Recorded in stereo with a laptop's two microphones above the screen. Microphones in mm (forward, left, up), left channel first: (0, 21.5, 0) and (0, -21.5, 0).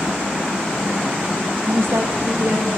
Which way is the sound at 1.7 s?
65° right (ahead or behind).